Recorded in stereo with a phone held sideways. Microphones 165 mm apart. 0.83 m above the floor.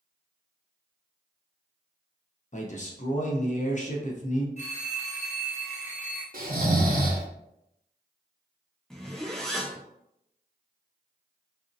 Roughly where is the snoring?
Right.